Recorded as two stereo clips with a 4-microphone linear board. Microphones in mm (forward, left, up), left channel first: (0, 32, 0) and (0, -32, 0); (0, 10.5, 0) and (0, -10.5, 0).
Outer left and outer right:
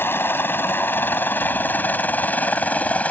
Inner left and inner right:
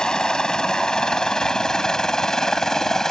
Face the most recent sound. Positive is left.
turn(degrees=25)  # may be behind; listen again after turning